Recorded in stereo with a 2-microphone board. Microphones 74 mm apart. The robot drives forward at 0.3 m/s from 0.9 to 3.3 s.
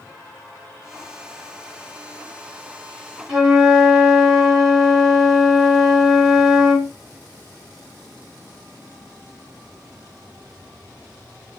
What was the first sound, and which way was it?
A flute, 5° right (ahead or behind).